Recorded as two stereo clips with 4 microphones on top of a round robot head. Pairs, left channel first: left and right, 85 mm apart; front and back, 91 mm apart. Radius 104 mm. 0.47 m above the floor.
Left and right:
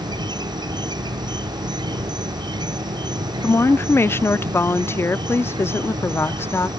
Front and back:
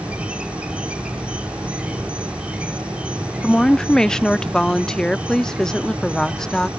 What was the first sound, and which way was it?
An insect, 105° right.